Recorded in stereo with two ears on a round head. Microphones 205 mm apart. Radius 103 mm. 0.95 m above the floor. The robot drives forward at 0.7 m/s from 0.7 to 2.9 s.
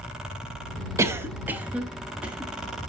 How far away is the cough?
About 0.6 m.